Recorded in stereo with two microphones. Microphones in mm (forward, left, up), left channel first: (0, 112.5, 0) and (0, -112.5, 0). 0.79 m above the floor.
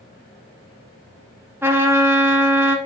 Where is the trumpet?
10° right (ahead or behind), 0.8 m.